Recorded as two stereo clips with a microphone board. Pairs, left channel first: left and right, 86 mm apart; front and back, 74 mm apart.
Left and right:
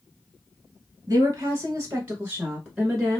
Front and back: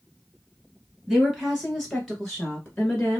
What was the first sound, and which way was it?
A woman speaking, 105° right.